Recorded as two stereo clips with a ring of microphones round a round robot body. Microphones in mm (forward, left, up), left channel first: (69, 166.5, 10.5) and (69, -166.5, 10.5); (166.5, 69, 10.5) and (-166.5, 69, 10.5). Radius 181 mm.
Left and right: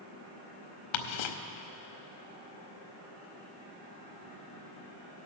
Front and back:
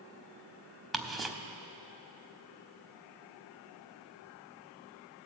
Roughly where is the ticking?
Left.